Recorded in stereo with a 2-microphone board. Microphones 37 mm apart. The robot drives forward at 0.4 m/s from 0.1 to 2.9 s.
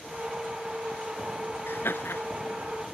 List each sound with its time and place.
1.7 s laughter: 80° left; by 2.2 s 85° left